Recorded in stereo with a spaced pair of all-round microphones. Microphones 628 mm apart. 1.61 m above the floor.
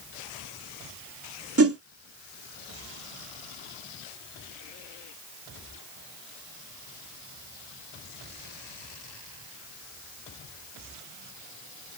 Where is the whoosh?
25° right (ahead or behind), 0.7 m.